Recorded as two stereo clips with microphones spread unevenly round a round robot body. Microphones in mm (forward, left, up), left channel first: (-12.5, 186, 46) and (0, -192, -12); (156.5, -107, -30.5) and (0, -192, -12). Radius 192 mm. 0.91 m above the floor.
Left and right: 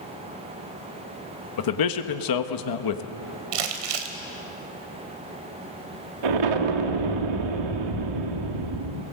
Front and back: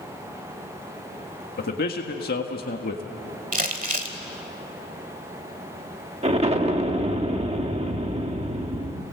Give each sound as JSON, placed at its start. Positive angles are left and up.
{"t": 1.6, "sound": "a man speaking", "azimuth_deg": 60, "distance_m": 1.5}
{"t": 3.5, "sound": "crumpling", "azimuth_deg": -110, "distance_m": 2.5}
{"t": 6.2, "sound": "an explosion", "azimuth_deg": -95, "distance_m": 1.9}